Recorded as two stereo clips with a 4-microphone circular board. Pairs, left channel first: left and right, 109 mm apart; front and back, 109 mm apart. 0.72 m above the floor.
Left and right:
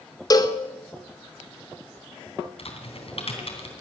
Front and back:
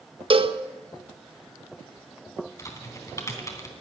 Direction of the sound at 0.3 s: 145° left.